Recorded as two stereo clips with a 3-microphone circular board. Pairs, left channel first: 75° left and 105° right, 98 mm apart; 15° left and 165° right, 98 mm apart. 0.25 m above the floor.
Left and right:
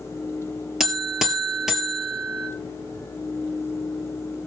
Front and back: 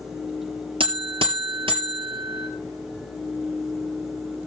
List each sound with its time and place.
0.8 s a buzzer: 170° left, 1.6 m